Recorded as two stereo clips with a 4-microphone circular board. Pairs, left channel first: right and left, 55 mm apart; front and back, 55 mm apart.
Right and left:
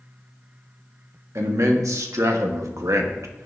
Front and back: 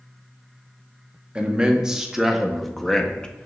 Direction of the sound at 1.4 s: 110° left.